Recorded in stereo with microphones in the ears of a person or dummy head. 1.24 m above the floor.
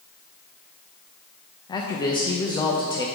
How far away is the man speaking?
About 0.6 m.